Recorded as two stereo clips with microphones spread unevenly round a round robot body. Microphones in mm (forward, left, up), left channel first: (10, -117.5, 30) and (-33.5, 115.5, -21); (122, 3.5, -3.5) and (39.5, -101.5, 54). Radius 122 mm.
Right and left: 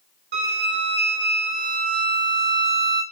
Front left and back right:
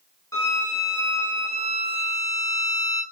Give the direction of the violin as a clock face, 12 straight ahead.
9 o'clock.